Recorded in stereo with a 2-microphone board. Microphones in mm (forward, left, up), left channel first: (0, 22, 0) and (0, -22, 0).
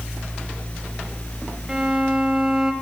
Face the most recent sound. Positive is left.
turn(degrees=-15)  # may be behind; listen again after turning